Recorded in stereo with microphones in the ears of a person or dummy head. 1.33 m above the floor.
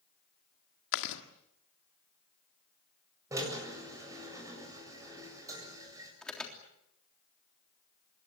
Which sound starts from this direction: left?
Chewing, at 0.9 s.